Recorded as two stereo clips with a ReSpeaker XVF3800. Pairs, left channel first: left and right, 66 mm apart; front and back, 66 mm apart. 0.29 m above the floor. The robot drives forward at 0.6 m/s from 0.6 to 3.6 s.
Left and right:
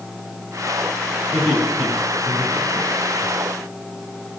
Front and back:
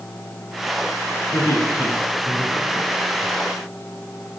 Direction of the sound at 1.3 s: 10° left.